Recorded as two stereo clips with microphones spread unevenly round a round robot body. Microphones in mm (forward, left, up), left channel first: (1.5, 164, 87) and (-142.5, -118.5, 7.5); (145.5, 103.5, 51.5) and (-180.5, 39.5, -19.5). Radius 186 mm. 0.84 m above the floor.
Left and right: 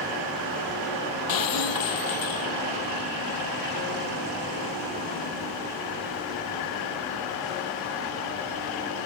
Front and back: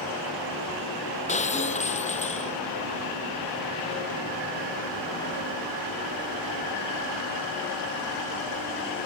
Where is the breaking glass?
80° left.